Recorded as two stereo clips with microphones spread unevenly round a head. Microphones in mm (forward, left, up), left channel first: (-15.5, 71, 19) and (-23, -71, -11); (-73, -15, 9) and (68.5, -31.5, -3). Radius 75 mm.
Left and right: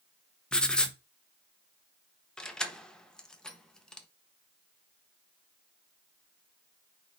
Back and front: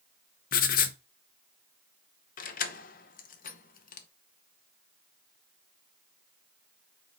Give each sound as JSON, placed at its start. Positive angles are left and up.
{"t": 0.5, "sound": "writing", "azimuth_deg": 165, "distance_m": 0.8}
{"t": 2.4, "sound": "keys jangling", "azimuth_deg": 165, "distance_m": 0.9}